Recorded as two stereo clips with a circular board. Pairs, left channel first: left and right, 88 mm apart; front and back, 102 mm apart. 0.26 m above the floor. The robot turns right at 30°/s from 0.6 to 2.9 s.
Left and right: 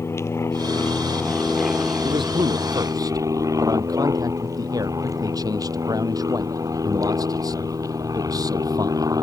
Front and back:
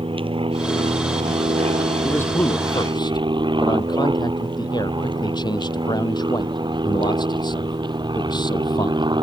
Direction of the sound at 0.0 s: 150° left.